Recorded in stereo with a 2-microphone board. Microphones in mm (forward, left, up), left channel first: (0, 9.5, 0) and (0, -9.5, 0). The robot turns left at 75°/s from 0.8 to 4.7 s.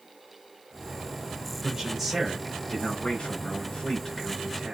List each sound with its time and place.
1.6 s a man speaking: 145° right, 5.5 m; by 4.7 s 15° right, 5.5 m